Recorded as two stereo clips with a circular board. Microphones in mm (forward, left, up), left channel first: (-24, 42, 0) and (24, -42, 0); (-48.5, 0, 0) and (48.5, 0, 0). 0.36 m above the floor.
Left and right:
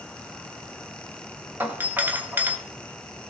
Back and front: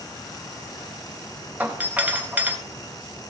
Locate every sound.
1.6 s a doorbell: 40° right, 1.4 m